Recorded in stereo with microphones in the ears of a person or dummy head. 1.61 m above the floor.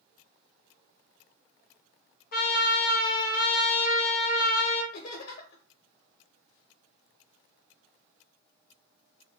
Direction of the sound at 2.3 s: 50° left (ahead or behind).